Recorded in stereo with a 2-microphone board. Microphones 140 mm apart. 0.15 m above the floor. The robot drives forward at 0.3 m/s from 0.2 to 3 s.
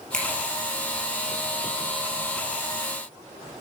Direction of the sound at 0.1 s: 5° left (ahead or behind).